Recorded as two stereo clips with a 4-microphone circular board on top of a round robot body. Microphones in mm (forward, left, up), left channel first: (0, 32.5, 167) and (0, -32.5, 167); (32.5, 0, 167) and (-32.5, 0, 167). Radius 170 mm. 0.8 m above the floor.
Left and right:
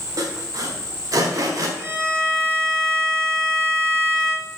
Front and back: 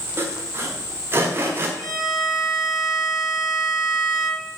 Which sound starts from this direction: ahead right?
A violin, at 1.8 s.